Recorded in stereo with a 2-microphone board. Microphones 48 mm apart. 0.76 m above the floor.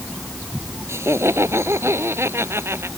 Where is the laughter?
65° right (ahead or behind); by 2.9 s 60° right (ahead or behind).